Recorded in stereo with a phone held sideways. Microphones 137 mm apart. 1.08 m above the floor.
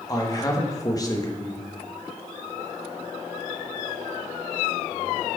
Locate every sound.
0.1 s a man speaking: 25° left (ahead or behind), 1.0 m